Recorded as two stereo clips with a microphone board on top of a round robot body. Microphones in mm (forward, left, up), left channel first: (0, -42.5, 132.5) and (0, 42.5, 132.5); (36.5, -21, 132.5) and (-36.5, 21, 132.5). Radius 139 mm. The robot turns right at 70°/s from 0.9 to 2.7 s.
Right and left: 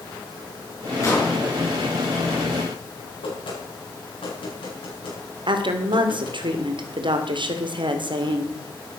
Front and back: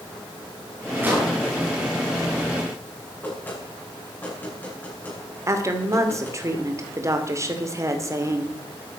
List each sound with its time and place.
1.0 s an explosion: 145° right, 5.5 m; by 1.4 s 120° right, 5.5 m
3.2 s knocking: 100° right, 8 m
5.5 s a woman speaking: 95° left, 2.5 m